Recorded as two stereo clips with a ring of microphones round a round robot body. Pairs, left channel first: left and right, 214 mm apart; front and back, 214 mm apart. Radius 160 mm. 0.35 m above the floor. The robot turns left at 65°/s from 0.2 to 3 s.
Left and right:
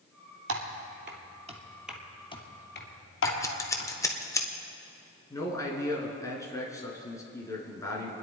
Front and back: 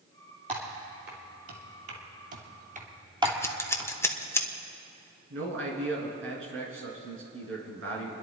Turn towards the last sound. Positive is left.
turn(degrees=165)